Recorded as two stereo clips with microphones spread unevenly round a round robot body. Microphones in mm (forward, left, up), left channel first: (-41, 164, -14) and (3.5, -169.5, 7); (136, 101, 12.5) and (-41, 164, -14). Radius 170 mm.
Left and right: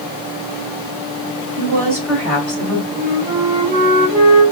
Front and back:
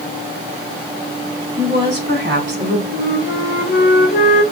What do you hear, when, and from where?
1.6 s a woman speaking: 160° right, 2.5 m; by 2.8 s 175° left, 2.5 m
2.9 s a flute: 25° right, 1.2 m